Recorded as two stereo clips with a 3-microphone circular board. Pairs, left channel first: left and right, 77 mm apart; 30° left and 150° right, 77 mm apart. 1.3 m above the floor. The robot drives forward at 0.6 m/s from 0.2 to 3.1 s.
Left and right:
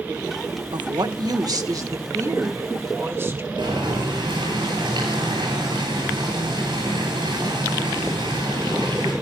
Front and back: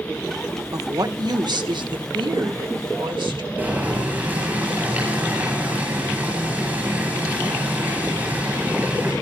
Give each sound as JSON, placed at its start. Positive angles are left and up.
{"t": 0.7, "sound": "a woman speaking", "azimuth_deg": -105, "distance_m": 1.1}
{"t": 3.6, "sound": "boiling", "azimuth_deg": -80, "distance_m": 10.0}